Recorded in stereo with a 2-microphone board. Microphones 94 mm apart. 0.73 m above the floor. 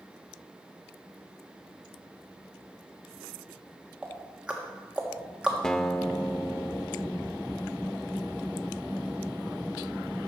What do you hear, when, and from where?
4.0 s ticking: 10° right (ahead or behind), 1.5 m
5.6 s a guitar: 5° left (ahead or behind), 0.5 m